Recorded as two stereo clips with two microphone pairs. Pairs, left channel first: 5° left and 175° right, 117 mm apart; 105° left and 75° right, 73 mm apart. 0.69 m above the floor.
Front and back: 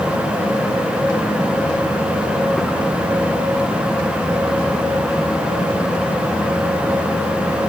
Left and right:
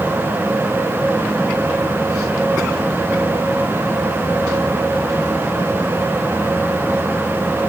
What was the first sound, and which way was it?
Only background noise.